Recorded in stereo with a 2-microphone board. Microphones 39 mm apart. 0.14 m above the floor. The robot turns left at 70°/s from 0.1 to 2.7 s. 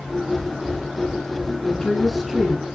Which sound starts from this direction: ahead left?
A woman speaking, at 1.6 s.